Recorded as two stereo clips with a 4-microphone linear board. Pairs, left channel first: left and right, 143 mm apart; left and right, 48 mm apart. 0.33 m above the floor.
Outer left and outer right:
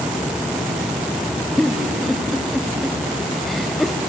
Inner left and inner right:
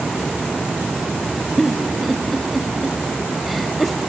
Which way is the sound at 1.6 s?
Centre (ahead or behind).